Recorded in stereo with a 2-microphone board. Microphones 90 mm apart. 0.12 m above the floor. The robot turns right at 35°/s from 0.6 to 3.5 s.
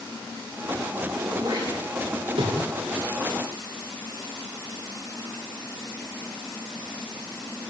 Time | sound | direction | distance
1.2 | throat clearing | 35° right (ahead or behind) | 9 m